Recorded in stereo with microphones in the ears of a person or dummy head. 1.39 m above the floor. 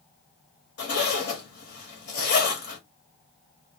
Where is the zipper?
55° left (ahead or behind), 1.2 m.